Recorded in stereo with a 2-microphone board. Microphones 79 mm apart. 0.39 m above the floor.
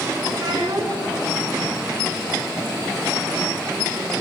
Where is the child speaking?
60° right (ahead or behind), 2.5 m.